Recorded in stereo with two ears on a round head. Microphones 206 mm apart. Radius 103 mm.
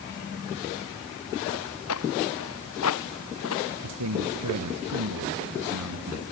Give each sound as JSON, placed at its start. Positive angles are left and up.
{"t": 1.5, "sound": "footsteps", "side_deg": 75}
{"t": 3.8, "sound": "a man speaking", "side_deg": -85}